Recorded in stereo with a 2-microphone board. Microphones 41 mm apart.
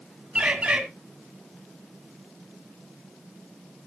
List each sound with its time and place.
0.3 s a bird: 35° right (ahead or behind), 1.7 m